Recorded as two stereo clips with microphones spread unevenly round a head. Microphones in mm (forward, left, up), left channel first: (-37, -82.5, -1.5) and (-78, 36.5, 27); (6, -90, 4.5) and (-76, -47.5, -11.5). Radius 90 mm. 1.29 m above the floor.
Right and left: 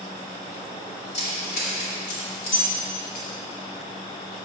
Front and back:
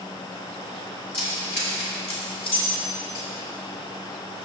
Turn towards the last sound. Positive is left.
turn(degrees=-50)